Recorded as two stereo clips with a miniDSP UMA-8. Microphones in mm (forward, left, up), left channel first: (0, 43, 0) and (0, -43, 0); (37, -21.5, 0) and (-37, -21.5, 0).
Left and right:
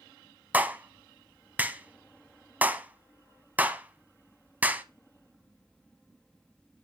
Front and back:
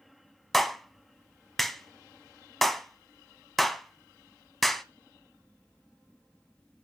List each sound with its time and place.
0.5 s a clap: 85° right, 0.8 m